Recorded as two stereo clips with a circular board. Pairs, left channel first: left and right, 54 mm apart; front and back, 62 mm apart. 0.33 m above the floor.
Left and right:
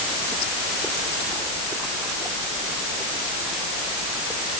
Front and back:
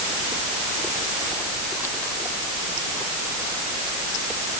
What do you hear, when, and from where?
Only background noise.